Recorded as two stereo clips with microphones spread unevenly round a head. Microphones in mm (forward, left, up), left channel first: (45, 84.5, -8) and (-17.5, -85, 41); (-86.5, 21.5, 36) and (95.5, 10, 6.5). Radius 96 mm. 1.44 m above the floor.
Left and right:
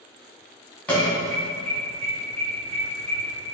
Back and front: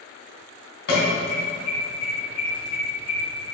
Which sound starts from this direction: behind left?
An alarm, at 0.9 s.